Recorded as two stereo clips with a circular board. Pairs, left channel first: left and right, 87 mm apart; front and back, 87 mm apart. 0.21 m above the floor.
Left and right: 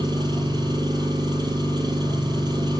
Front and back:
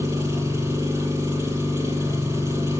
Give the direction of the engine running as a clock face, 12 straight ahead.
4 o'clock.